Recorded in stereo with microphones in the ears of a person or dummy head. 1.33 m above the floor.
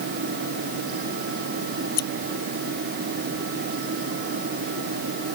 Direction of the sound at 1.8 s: 55° left (ahead or behind).